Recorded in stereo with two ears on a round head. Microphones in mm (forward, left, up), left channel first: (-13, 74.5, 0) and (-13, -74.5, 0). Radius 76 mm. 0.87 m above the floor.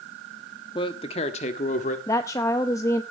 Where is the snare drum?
No snare drum in this recording.